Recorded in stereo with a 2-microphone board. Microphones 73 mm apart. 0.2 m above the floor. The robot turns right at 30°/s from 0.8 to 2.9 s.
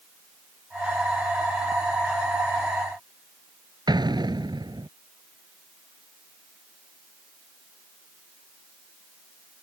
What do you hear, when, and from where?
3.9 s an explosion: 70° right (ahead or behind)